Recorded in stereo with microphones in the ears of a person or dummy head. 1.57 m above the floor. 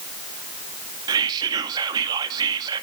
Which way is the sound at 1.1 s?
20° right (ahead or behind).